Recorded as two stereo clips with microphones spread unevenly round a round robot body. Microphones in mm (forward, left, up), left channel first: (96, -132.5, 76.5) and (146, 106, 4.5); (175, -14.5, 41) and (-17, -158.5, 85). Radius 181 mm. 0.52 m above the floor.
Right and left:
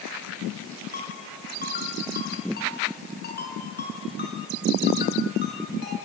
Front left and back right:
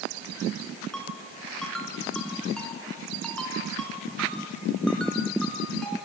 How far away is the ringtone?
About 5.5 m.